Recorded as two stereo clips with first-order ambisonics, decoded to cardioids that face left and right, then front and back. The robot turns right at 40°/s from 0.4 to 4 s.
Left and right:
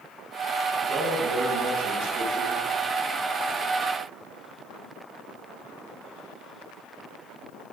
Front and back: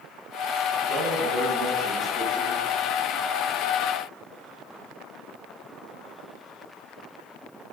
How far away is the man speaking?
About 4.5 m.